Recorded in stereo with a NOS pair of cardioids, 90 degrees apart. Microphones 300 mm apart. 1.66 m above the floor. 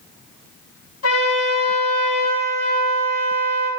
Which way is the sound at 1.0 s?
60° left.